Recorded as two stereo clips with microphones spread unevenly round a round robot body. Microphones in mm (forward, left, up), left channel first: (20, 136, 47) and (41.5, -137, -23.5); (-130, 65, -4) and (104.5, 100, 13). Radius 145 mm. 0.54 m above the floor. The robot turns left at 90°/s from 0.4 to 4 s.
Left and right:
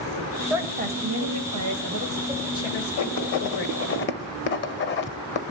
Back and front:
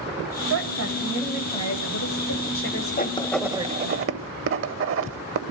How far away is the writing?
About 0.9 m.